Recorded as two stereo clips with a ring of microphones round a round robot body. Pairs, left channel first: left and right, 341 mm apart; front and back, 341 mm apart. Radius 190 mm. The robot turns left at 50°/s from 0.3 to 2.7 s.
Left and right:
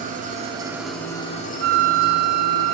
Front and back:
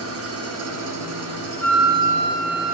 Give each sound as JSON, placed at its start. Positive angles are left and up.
{"t": 0.0, "sound": "an engine running", "azimuth_deg": -150, "distance_m": 0.9}
{"t": 1.6, "sound": "a flute", "azimuth_deg": -80, "distance_m": 0.6}